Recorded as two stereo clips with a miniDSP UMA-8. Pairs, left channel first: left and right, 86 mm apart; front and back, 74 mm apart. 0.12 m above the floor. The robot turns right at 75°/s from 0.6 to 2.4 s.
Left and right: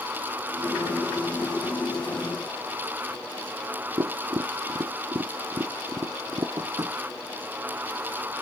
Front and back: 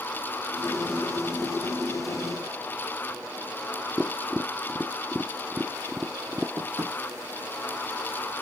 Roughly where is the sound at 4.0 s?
Right.